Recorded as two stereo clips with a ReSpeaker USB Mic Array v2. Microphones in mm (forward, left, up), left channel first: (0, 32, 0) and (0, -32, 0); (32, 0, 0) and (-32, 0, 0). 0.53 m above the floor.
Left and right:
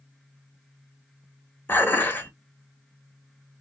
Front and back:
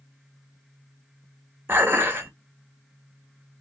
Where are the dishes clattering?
140° left, 0.7 m.